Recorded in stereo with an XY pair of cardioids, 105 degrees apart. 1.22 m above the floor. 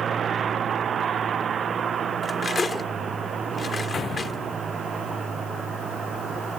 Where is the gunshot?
45° left.